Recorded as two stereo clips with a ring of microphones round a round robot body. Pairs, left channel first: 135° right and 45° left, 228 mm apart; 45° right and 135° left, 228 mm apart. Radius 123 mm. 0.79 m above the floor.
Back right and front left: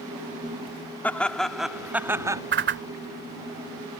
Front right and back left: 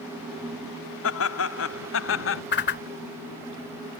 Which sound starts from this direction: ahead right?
Laughter, at 1.0 s.